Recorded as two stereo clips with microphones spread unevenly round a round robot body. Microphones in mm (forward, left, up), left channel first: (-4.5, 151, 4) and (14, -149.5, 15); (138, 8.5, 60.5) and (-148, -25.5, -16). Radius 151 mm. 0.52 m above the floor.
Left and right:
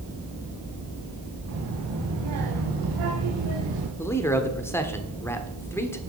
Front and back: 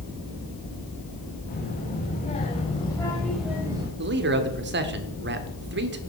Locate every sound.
1.5 s a child speaking: 50° right, 2.5 m; by 3.9 s 100° right, 1.4 m
4.0 s a man speaking: 170° left, 1.2 m